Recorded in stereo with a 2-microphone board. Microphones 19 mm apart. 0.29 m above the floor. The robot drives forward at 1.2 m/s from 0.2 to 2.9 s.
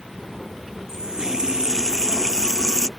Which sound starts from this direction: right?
A running tap, at 0.9 s.